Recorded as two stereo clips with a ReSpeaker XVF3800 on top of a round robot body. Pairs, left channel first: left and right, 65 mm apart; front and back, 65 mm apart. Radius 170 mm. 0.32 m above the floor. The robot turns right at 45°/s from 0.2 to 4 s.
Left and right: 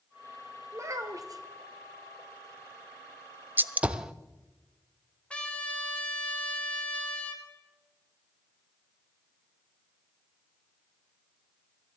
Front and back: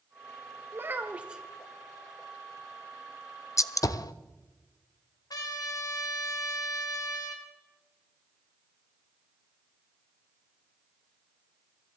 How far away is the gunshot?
About 0.6 m.